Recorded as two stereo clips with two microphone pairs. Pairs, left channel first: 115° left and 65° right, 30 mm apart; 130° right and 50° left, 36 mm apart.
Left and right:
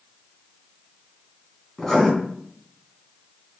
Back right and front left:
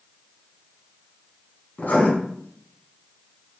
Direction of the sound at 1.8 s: 165° right.